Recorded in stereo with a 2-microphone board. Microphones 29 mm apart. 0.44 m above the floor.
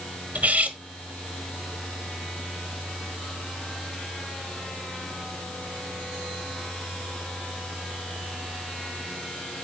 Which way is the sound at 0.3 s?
60° right (ahead or behind).